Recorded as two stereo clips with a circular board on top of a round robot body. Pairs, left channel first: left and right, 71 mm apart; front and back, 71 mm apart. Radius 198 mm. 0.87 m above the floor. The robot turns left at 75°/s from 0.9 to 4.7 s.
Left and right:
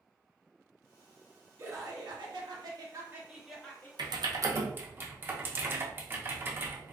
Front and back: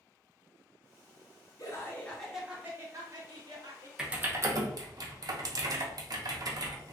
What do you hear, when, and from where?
1.6 s laughter: 35° right, 1.2 m; by 3.9 s 150° left, 1.2 m
4.0 s typing on a keyboard: 100° right, 0.7 m; by 6.9 s 150° right, 0.7 m